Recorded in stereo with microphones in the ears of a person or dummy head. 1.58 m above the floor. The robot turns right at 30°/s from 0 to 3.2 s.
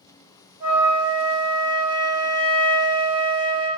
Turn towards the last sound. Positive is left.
turn(degrees=-80)